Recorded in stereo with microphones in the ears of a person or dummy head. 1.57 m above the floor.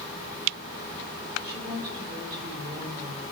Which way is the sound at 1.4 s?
25° right (ahead or behind).